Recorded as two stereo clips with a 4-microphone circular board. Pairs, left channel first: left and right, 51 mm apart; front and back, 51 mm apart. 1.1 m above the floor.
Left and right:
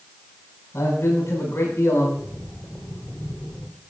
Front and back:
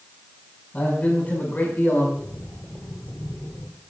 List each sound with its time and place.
0.7 s a man speaking: 60° left, 8 m; by 2.1 s 55° left, 8 m
2.2 s breathing: 40° left, 8.5 m